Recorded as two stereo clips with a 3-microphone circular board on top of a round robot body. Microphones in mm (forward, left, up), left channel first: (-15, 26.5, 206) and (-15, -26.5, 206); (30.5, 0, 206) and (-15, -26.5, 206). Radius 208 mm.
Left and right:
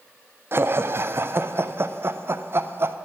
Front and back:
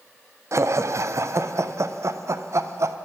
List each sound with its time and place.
0.5 s laughter: 130° right, 0.6 m